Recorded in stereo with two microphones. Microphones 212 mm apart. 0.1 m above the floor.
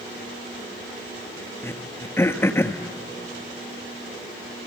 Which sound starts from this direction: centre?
Throat clearing, at 1.6 s.